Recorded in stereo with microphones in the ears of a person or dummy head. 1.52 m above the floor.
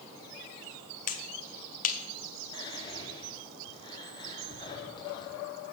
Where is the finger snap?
35° left (ahead or behind), 0.7 m.